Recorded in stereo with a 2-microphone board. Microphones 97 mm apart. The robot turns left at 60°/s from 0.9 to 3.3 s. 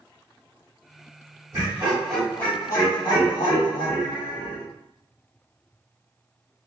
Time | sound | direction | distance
1.5 | laughter | 145° right | 1.3 m